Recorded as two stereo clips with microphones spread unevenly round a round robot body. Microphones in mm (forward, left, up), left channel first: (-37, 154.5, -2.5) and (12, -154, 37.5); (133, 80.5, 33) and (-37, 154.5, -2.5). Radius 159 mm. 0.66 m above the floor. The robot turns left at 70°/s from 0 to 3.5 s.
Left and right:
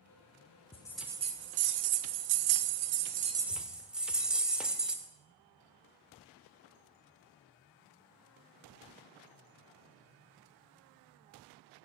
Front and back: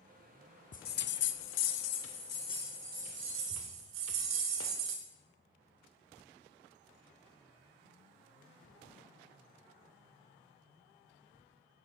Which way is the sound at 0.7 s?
25° left.